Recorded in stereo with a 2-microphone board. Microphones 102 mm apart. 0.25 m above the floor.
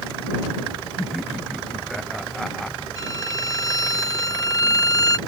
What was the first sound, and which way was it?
Laughter, centre (ahead or behind).